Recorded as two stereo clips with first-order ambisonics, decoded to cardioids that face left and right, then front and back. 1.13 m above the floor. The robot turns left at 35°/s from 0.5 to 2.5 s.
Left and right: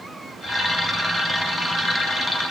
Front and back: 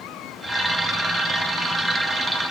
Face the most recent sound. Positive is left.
No sound to turn to.